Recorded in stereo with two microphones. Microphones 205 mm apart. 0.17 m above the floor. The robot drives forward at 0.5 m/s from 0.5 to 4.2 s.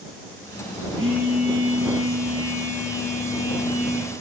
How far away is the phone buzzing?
About 4.5 m.